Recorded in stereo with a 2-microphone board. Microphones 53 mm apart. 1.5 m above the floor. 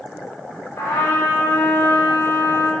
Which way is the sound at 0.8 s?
60° left (ahead or behind).